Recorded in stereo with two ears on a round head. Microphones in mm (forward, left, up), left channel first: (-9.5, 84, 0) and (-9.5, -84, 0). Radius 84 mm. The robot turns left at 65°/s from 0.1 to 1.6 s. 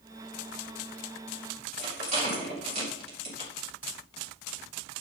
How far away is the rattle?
About 4.5 m.